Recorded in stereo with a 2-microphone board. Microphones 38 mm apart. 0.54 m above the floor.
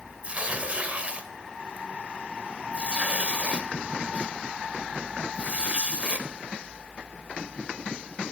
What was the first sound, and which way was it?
Tearing paper, 35° right (ahead or behind).